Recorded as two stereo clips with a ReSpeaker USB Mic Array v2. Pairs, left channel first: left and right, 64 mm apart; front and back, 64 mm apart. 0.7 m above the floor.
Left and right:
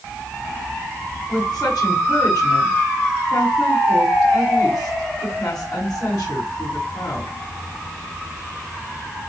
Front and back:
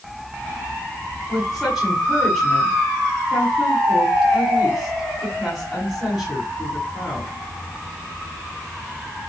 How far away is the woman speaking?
About 5 m.